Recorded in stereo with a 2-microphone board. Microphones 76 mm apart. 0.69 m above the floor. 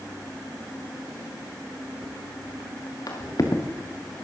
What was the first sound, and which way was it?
Footsteps, 55° left (ahead or behind).